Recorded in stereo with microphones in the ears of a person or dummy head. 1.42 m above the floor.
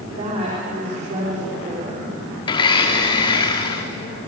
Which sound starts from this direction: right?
A woman speaking, at 0.1 s.